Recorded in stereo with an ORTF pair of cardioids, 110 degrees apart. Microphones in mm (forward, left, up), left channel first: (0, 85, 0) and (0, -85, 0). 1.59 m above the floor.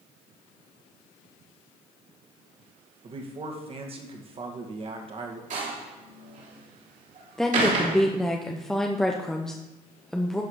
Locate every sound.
3.0 s a man speaking: 35° right, 2 m
5.5 s a door slam: 50° right, 3 m
7.4 s a woman speaking: 5° left, 0.8 m